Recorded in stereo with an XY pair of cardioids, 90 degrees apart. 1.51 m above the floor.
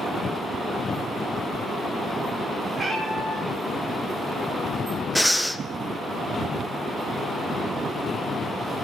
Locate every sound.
2.7 s a cat meowing: 30° right, 5 m
5.2 s breathing: 5° left, 0.8 m